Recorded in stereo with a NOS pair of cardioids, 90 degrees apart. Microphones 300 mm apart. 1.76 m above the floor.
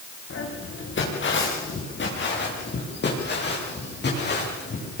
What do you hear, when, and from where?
0.3 s footsteps: 45° left, 7 m; by 5.0 s 35° left, 13.5 m